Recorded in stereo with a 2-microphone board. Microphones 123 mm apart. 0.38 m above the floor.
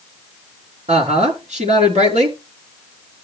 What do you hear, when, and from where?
0.9 s a woman speaking: 75° right (ahead or behind), 4 m